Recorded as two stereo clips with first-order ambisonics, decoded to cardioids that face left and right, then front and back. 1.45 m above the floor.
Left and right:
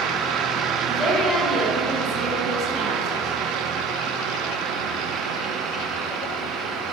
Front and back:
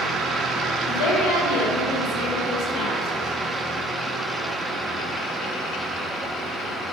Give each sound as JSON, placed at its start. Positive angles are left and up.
{"t": 0.9, "sound": "a woman speaking", "azimuth_deg": 5, "distance_m": 1.7}